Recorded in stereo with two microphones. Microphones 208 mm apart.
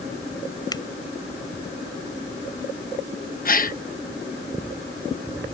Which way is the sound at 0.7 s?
20° left (ahead or behind).